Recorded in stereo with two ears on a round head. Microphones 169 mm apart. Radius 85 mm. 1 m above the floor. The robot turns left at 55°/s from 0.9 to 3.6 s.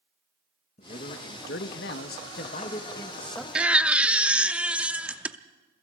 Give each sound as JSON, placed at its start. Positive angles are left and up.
{"t": 0.8, "sound": "a man speaking", "azimuth_deg": 135, "distance_m": 1.4}
{"t": 3.5, "sound": "a baby crying", "side_deg": -5, "distance_m": 0.5}